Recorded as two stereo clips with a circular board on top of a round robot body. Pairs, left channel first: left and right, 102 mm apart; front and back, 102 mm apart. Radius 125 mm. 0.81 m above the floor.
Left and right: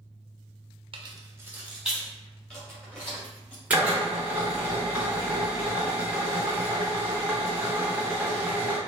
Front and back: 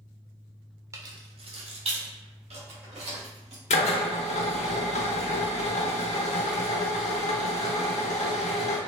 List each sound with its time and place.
0.9 s keys jangling: 120° right, 0.8 m; by 3.6 s 170° left, 4 m
3.7 s a drill: 15° right, 0.8 m